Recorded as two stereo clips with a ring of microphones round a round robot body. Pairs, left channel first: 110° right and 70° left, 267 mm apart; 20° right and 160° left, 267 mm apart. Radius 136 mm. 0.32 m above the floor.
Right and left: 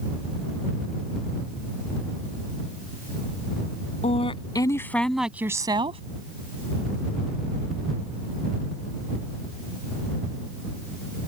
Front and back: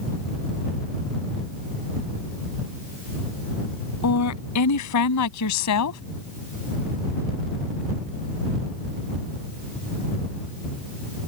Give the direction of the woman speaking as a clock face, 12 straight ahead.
2 o'clock.